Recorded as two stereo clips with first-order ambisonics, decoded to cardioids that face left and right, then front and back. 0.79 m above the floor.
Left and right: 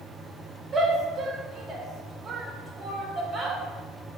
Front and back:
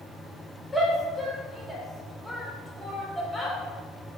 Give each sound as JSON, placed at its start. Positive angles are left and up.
{"t": 0.7, "sound": "a shout", "azimuth_deg": -90, "distance_m": 0.8}